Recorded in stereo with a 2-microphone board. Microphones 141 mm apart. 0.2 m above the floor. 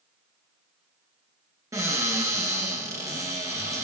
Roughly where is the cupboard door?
Right.